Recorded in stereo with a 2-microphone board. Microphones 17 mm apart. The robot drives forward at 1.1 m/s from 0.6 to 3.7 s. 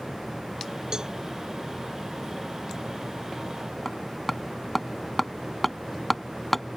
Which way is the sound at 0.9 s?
40° right (ahead or behind).